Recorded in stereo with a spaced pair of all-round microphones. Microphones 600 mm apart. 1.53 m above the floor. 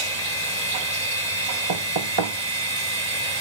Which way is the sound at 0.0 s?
85° right.